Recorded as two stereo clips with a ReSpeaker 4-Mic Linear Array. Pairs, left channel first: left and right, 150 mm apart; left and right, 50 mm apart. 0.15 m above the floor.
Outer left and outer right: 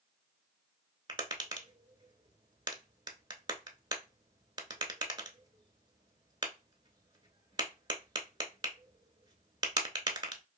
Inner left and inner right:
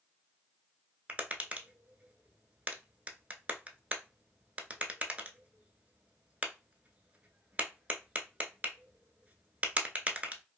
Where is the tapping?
30° right (ahead or behind), 0.5 m.